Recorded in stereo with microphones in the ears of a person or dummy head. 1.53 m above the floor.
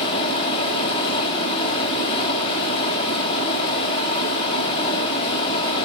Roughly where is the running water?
Left.